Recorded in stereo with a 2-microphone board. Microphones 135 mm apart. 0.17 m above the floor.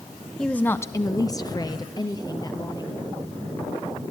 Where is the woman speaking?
5° left (ahead or behind), 1.0 m; by 3.0 s 30° left (ahead or behind), 4 m.